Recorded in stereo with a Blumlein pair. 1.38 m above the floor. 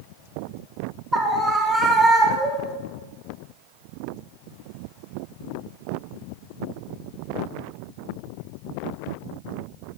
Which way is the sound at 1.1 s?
5° right.